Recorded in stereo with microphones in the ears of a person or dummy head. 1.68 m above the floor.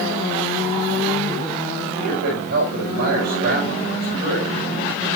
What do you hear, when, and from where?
1.9 s a man speaking: 55° right (ahead or behind), 6 m